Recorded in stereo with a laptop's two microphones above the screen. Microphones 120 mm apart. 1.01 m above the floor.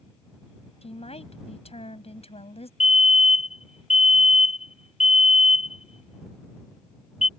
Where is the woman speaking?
55° left (ahead or behind).